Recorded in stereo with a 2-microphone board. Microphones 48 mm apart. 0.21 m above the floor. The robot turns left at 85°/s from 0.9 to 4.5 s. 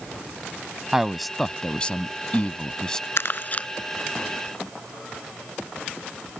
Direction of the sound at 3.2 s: 65° left (ahead or behind).